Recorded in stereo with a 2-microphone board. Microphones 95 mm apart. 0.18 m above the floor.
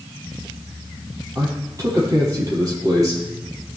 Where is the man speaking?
40° right (ahead or behind), 5.5 m.